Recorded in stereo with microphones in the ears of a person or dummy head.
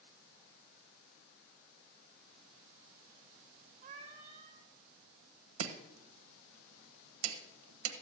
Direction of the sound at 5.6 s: 85° right.